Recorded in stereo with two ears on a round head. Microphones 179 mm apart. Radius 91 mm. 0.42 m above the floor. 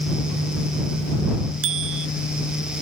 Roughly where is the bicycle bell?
Right.